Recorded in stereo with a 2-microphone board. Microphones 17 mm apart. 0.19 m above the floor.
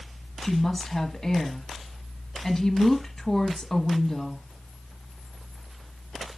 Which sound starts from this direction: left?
A woman speaking, at 0.4 s.